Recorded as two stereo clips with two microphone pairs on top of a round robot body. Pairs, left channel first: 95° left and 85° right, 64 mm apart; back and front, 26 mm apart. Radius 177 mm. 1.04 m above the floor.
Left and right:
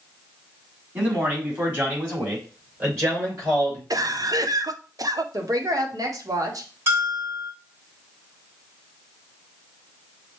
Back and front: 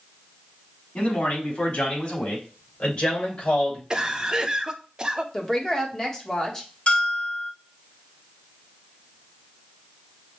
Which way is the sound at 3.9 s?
70° right.